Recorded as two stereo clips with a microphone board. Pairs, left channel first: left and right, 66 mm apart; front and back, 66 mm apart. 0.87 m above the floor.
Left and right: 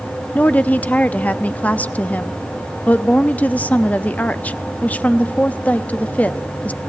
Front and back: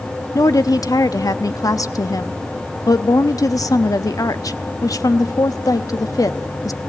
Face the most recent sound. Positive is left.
turn(degrees=25)